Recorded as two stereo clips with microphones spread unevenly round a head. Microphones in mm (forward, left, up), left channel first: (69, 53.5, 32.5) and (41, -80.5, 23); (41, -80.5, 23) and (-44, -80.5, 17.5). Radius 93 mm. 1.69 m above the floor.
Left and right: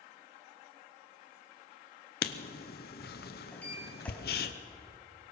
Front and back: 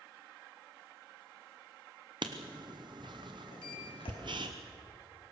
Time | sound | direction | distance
2.2 | writing | 115° left | 0.8 m
3.5 | a sliding door | straight ahead | 3.5 m